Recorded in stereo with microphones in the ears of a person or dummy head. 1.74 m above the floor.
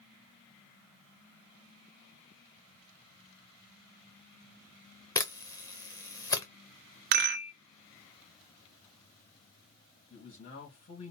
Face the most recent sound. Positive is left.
turn(degrees=50)  # may be behind; listen again after turning